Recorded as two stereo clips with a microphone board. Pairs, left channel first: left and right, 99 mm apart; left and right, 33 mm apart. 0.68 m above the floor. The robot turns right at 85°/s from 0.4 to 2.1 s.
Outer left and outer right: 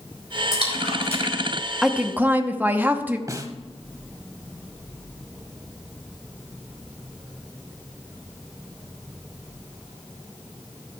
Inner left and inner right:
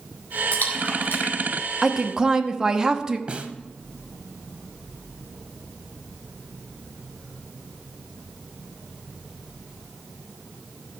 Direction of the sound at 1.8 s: 5° right (ahead or behind).